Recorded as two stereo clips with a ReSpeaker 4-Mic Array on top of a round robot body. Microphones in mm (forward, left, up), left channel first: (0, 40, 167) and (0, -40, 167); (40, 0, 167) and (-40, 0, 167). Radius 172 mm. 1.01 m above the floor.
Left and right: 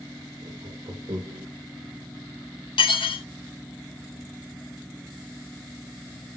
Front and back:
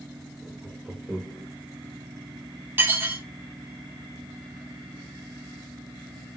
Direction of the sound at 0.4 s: 95° right.